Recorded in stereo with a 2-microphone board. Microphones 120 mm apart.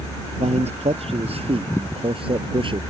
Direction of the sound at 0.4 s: 60° right (ahead or behind).